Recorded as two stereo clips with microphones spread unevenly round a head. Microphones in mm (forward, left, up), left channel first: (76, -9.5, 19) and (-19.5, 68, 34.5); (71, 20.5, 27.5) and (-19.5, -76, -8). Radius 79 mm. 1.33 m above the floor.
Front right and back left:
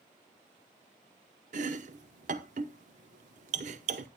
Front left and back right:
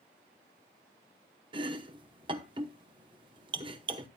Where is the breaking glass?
I don't hear breaking glass.